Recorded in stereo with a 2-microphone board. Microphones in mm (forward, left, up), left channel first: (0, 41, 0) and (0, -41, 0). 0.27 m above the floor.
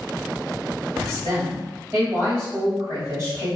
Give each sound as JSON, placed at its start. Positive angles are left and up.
{"t": 1.0, "sound": "a woman speaking", "side_deg": -30, "distance_m": 1.7}